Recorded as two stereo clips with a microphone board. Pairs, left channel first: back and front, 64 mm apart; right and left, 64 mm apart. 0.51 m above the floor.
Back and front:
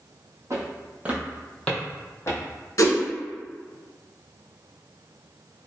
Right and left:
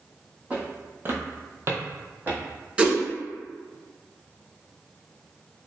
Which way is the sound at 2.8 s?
160° left.